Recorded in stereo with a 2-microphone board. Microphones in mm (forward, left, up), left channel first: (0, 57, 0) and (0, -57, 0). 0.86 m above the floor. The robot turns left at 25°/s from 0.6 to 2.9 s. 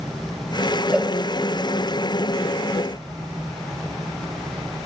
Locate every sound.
0.9 s a cowbell: 5° right (ahead or behind), 0.7 m; by 1.1 s centre (ahead or behind), 0.7 m